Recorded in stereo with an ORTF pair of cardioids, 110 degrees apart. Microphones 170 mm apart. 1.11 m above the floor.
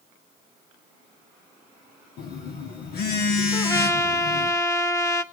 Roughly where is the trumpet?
Ahead.